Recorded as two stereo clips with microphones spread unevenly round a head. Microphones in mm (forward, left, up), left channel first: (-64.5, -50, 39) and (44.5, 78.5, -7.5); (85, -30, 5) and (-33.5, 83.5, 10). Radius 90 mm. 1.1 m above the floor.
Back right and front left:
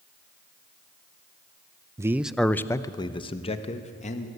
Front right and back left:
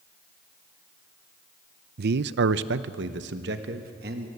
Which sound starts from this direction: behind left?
A man speaking, at 2.0 s.